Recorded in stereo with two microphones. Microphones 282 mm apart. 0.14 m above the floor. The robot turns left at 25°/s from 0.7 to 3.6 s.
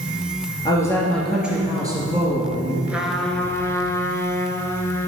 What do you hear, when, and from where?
0.7 s a woman speaking: 15° left, 2.5 m; by 2.8 s 35° right, 2.5 m
2.9 s a trumpet: 5° right (ahead or behind), 0.9 m; by 5.1 s 10° left (ahead or behind), 0.9 m